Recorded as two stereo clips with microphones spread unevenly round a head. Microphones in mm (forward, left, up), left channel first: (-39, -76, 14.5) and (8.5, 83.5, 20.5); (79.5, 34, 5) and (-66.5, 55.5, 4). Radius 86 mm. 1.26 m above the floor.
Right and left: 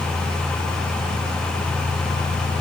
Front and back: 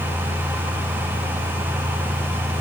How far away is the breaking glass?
No breaking glass in this recording.